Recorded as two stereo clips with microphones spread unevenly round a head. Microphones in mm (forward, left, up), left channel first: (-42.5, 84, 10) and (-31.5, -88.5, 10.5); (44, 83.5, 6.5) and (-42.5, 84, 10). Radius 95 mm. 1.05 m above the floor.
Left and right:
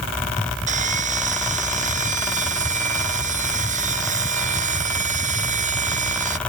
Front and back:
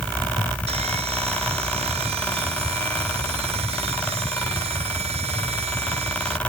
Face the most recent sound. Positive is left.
turn(degrees=-135)